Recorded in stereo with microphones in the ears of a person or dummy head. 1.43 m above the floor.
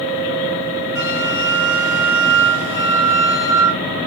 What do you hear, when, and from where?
0.9 s a flute: 10° right (ahead or behind), 1.0 m